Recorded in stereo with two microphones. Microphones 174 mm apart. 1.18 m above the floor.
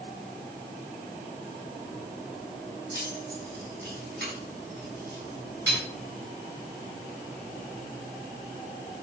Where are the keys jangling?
90° right, 6.5 m; by 5.8 s 85° right, 7.5 m.